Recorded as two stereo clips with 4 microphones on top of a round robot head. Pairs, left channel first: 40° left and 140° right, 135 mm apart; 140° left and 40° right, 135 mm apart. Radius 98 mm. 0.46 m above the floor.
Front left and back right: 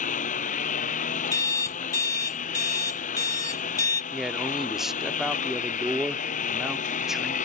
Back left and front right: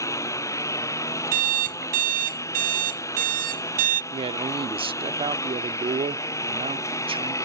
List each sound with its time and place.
0.0 s a lawn mower: 70° left
1.3 s an alarm clock: 25° right
4.1 s a man speaking: 55° right